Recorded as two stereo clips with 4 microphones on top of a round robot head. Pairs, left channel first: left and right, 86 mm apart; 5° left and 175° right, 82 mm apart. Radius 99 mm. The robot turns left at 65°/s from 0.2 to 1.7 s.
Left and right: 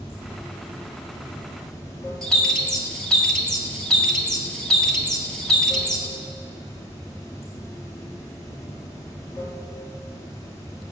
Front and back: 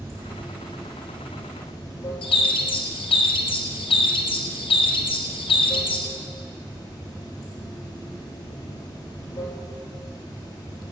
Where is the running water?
140° left, 1.3 m; by 10.9 s 40° left, 1.3 m.